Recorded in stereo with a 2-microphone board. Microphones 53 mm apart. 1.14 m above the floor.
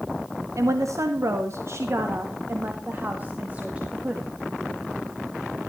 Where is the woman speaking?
75° right (ahead or behind), 1.8 m; by 4.3 s 20° right (ahead or behind), 2 m.